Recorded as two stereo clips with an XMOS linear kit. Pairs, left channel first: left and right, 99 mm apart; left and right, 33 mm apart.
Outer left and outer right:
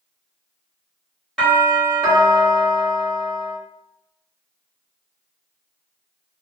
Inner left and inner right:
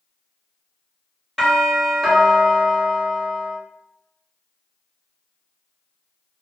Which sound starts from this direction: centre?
A doorbell, at 1.4 s.